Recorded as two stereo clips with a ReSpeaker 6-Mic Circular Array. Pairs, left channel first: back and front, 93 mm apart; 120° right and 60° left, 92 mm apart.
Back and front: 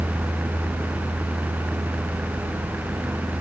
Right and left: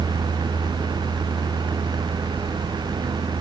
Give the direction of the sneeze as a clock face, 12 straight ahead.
I don't hear a sneeze.